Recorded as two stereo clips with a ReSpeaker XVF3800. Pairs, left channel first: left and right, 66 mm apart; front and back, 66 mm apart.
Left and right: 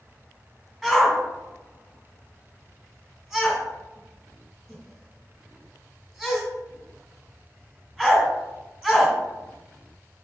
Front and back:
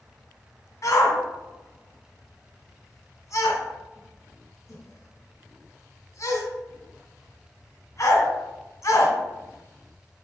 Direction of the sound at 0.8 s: 10° right.